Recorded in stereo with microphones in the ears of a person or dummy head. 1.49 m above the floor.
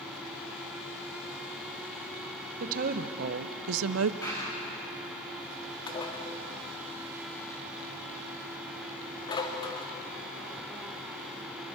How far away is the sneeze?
No sneeze in this recording.